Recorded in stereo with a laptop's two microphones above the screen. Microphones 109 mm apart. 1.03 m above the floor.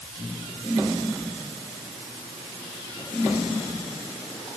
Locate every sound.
Only background noise.